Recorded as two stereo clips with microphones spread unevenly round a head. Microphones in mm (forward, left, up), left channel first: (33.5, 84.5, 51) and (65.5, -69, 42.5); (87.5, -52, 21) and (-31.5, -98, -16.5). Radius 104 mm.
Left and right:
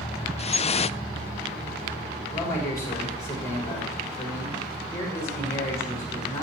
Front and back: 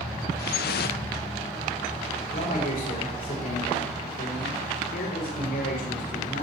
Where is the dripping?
50° left, 0.5 m.